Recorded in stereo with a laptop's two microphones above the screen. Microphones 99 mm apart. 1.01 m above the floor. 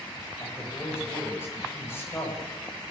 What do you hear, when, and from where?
0.4 s a man speaking: 25° left (ahead or behind), 6 m